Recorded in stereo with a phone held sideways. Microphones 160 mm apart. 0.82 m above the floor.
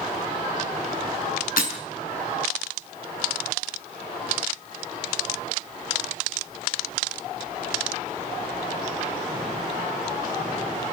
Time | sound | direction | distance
1.6 | breaking glass | 65° left (ahead or behind) | 5 m